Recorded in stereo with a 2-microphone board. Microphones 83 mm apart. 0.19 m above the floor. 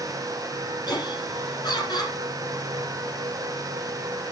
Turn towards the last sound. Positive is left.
turn(degrees=50)  # may be behind; listen again after turning